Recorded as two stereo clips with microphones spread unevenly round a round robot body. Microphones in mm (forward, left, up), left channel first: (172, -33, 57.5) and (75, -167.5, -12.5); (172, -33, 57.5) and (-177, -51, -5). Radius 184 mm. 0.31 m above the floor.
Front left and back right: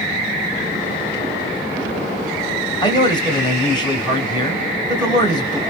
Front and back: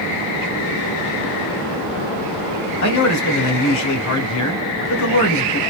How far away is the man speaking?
About 1.9 m.